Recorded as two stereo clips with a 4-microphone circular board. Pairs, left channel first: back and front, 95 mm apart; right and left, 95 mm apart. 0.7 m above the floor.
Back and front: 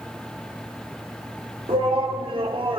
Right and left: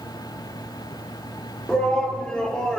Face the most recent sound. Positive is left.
turn(degrees=-10)